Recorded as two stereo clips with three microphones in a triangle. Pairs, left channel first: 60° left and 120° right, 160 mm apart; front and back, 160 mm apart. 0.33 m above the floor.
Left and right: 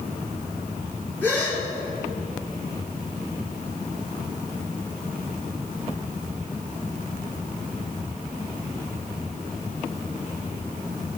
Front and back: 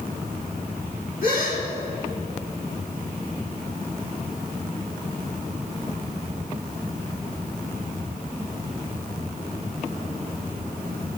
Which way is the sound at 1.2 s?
20° right.